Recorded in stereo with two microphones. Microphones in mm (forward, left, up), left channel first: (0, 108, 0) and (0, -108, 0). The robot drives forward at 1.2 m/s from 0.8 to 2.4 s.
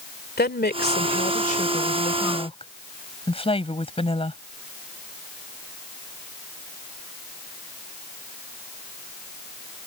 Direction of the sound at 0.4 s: 45° left (ahead or behind).